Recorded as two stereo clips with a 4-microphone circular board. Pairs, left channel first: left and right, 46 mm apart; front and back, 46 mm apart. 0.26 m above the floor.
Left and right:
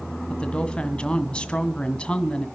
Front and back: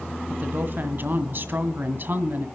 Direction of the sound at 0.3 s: 155° left.